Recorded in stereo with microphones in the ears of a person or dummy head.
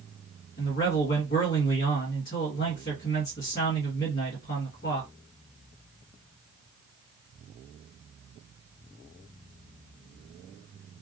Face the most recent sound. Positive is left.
turn(degrees=45)  # may be behind; listen again after turning